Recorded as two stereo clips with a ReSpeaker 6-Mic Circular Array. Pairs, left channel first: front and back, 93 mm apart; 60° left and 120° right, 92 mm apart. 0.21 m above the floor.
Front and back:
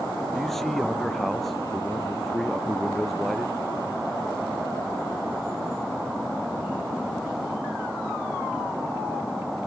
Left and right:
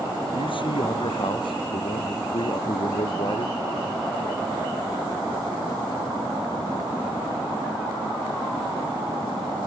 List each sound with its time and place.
0.3 s a man speaking: 85° left